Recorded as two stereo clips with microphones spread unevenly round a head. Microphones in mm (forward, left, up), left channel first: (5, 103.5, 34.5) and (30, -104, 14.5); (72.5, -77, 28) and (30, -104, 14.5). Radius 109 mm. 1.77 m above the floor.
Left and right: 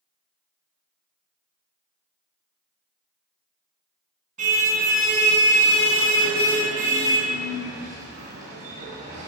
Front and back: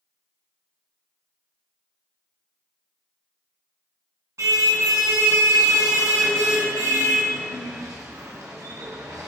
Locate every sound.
4.4 s a car horn: 140° right, 10 m